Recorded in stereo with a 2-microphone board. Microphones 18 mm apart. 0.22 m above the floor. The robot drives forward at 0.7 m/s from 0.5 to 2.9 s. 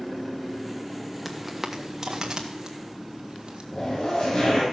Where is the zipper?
50° left (ahead or behind), 4.5 m.